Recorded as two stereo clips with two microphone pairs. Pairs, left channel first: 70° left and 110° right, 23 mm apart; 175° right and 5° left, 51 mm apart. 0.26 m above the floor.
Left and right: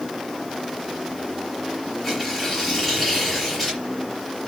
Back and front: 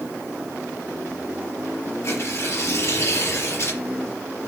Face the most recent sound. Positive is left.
turn(degrees=145)